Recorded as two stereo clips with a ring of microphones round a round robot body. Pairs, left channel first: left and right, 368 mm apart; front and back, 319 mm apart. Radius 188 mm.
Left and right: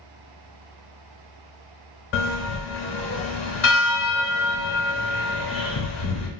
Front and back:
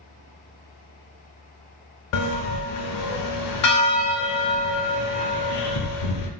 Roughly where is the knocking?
I don't hear knocking.